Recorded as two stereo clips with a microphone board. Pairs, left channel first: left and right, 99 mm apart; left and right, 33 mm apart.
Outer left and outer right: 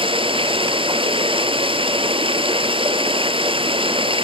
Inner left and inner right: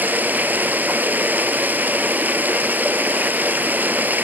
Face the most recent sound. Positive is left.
turn(degrees=-65)  # may be behind; listen again after turning